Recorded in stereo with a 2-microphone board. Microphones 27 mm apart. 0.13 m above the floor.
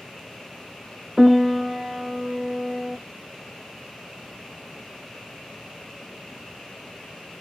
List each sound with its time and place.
1.2 s a piano: 5° right (ahead or behind), 0.9 m